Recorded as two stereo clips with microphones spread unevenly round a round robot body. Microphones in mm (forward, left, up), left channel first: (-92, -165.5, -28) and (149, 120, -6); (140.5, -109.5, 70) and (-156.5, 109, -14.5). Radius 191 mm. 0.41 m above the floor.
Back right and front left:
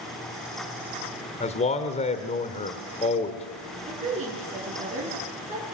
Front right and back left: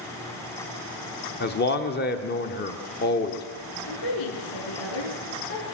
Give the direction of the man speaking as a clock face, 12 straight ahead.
3 o'clock.